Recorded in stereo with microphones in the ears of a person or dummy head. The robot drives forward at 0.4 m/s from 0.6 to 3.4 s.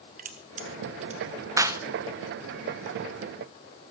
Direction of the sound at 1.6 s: 20° right (ahead or behind).